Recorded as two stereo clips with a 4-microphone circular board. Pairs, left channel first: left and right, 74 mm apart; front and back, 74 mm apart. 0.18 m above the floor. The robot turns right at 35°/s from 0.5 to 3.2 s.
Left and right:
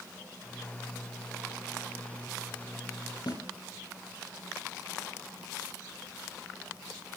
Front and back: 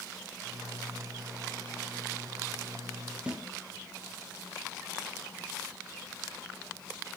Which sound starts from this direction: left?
A snare drum, at 3.3 s.